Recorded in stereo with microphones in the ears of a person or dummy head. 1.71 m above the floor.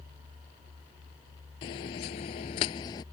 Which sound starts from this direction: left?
Footsteps, at 1.6 s.